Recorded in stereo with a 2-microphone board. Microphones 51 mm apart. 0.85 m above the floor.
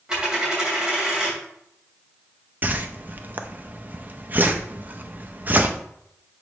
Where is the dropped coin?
15° right (ahead or behind), 2.5 m.